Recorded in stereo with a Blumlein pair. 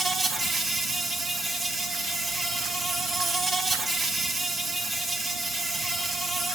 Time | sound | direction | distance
0.0 | an insect | 10° right | 1.6 m